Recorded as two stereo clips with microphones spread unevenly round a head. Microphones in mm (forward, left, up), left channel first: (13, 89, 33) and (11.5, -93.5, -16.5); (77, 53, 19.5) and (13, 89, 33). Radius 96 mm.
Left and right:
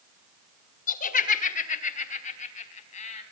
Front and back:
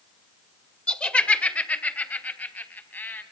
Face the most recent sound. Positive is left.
turn(degrees=35)